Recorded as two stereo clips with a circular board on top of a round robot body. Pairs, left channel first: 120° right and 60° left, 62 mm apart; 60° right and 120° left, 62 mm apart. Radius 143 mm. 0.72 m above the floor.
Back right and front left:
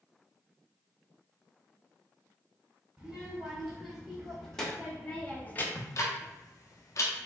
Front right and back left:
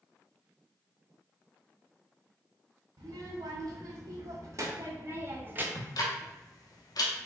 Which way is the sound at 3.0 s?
145° left.